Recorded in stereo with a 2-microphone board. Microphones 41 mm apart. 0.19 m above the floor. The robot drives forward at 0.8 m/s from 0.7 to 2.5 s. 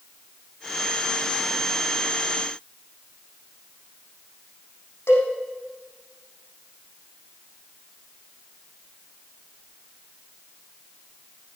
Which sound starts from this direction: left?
A cowbell, at 5.1 s.